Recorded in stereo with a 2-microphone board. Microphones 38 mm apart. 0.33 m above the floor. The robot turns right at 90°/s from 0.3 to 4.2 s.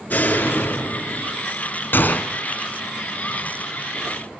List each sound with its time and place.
0.1 s a door slam: 55° left, 3.5 m; by 1.4 s 155° left, 3.5 m
1.9 s a gunshot: 115° left, 1.5 m; by 2.3 s 150° left, 1.5 m